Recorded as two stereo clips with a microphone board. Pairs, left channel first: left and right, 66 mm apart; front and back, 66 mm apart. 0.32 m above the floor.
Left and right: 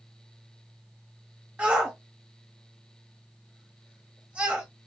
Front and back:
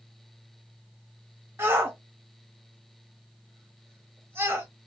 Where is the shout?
150° right, 1.1 m.